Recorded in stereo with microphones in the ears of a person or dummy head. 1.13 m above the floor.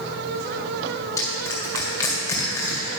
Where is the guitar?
I don't hear a guitar.